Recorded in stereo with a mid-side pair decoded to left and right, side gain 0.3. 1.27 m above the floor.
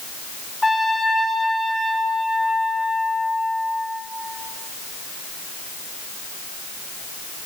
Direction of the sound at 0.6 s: 25° left.